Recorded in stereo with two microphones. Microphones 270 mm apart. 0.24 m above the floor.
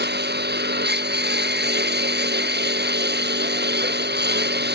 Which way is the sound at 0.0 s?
40° right (ahead or behind).